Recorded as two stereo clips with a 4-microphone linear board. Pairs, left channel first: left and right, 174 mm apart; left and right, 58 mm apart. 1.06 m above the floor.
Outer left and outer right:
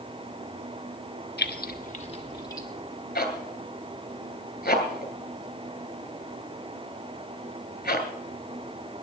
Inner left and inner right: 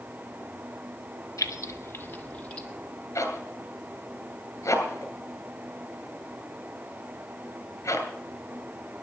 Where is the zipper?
70° left (ahead or behind), 2.5 m.